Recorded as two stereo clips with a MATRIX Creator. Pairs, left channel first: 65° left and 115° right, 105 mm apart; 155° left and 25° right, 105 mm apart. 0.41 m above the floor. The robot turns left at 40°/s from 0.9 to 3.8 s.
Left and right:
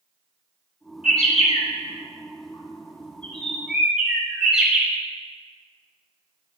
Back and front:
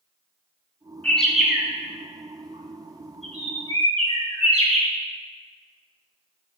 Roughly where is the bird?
Left.